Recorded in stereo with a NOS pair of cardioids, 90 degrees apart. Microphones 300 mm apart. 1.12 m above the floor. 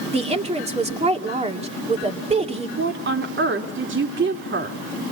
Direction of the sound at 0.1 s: 20° right.